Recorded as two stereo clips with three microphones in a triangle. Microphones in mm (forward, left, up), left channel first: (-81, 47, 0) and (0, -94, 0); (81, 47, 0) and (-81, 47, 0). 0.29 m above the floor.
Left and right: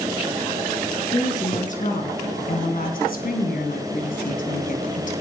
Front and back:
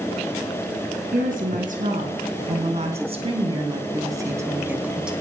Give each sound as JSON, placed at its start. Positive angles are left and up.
{"t": 1.1, "sound": "a woman speaking", "azimuth_deg": 160, "distance_m": 3.5}